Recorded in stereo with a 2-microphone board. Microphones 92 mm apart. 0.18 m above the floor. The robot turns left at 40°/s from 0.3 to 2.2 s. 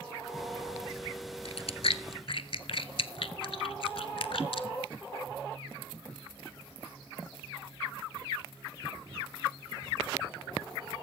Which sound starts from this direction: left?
Chewing, at 1.4 s.